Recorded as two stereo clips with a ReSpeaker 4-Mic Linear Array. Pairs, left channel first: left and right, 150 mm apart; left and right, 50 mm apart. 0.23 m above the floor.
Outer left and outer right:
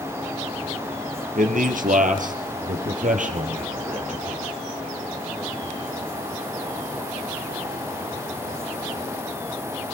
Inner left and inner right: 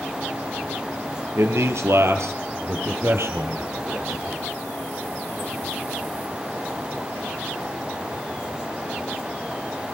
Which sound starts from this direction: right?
A man speaking, at 1.4 s.